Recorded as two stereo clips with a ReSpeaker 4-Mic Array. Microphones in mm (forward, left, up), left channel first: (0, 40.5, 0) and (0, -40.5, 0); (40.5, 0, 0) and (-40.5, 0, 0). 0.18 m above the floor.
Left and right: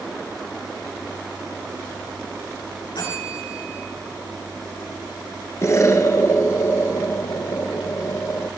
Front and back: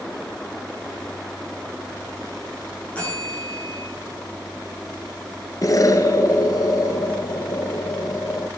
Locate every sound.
3.0 s a bell: 75° left, 9 m
5.6 s an explosion: 40° left, 1.0 m